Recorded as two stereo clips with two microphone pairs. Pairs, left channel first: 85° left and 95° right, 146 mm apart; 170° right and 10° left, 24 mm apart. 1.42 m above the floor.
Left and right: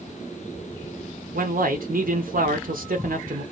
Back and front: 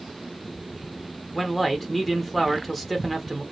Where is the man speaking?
85° right, 0.6 m.